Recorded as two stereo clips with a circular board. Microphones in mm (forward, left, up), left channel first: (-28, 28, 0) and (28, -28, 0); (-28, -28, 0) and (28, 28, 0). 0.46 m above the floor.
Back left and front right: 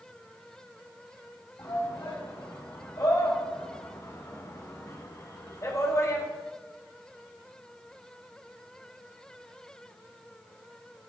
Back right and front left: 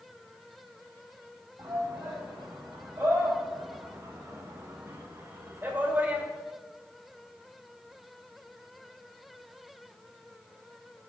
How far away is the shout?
About 4 m.